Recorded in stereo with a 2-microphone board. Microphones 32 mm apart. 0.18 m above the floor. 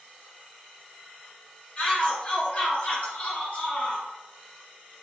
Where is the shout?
35° left (ahead or behind), 1.8 m; by 4.0 s 50° left (ahead or behind), 2 m.